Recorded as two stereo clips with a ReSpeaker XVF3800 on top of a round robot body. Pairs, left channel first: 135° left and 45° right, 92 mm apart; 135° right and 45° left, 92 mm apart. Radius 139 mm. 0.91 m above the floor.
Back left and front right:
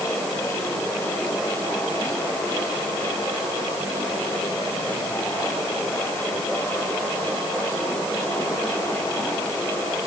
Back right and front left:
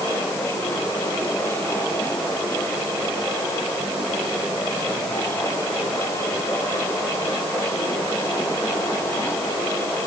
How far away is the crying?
I don't hear crying.